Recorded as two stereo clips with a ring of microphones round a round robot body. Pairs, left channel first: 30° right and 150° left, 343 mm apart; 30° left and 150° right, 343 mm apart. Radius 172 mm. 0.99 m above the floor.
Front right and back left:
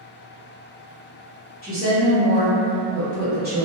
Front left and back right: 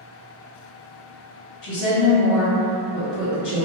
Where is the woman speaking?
40° left, 1.1 m.